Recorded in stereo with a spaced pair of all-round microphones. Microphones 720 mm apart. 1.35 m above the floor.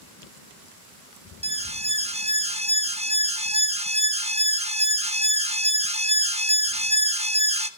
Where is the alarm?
10° right (ahead or behind), 0.9 m.